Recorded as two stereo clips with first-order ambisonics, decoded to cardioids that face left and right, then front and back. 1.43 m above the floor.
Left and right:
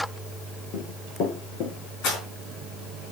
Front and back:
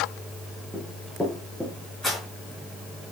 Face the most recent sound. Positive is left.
turn(degrees=80)